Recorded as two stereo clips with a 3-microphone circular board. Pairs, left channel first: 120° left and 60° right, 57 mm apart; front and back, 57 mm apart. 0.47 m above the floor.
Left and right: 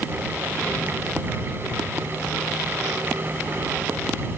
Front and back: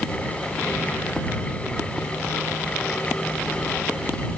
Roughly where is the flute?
No flute in this recording.